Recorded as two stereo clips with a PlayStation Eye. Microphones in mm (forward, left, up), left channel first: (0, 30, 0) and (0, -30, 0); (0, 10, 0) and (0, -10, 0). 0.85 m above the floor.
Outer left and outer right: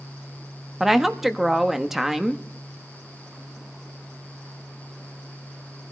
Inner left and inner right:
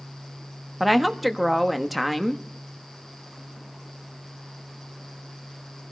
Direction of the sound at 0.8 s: 5° right (ahead or behind).